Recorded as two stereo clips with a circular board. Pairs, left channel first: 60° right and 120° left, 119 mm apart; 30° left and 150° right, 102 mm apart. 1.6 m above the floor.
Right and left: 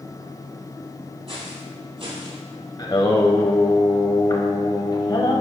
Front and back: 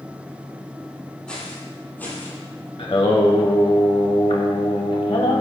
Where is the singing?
5° right, 1.2 m.